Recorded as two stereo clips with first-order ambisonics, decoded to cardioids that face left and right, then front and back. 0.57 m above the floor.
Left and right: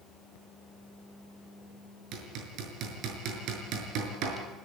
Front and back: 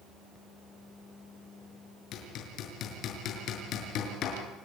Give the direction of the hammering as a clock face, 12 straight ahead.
2 o'clock.